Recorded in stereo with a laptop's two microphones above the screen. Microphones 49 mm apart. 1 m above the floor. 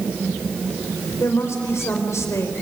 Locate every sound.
1.2 s a woman speaking: 75° left (ahead or behind), 4.5 m